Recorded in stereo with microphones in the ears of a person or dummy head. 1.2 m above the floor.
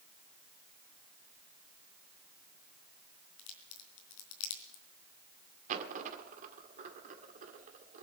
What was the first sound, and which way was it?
A crack, 75° left (ahead or behind).